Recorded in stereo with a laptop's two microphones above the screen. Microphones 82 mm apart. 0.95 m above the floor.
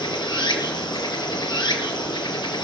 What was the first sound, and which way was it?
Running water, 65° left (ahead or behind).